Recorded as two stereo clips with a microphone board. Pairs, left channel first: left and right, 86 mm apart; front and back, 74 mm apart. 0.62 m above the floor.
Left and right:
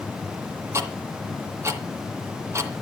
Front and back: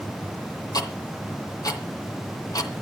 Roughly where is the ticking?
Ahead right.